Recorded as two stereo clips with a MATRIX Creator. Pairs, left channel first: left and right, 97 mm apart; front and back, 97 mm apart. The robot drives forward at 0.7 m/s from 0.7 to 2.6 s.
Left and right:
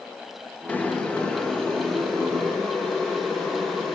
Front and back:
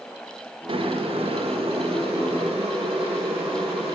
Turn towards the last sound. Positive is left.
turn(degrees=175)